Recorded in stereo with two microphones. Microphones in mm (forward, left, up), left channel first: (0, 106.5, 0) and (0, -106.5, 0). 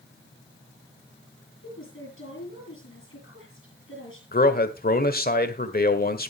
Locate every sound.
1.6 s a woman speaking: 70° left (ahead or behind), 7 m
4.3 s a man speaking: 45° left (ahead or behind), 1.3 m